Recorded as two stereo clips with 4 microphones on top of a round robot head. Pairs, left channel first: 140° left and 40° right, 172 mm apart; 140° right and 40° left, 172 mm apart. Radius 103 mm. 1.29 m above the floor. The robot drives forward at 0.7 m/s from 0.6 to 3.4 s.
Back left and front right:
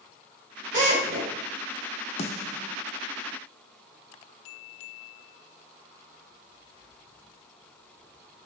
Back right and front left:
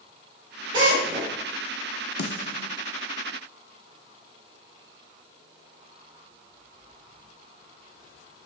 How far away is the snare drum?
About 1.0 m.